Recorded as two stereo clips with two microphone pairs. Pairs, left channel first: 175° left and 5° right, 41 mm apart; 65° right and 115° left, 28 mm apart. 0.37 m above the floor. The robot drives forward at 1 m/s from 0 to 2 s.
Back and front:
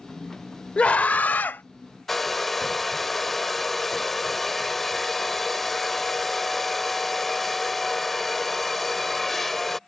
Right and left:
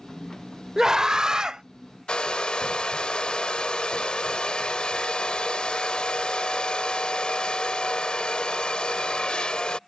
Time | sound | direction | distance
0.8 | a scream | 170° left | ?
2.1 | a hair dryer | 100° right | ?